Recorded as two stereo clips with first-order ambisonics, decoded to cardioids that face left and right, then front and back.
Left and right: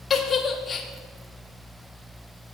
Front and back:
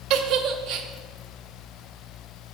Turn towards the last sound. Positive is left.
turn(degrees=160)